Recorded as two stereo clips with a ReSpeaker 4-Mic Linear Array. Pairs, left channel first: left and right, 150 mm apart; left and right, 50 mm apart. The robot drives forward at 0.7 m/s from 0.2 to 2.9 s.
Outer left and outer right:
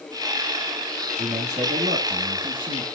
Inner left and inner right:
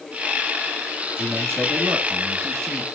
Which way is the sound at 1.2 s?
50° right (ahead or behind).